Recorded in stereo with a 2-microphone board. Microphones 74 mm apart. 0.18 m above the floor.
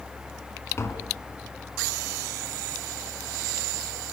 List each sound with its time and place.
0.8 s tapping: 35° left (ahead or behind), 2.5 m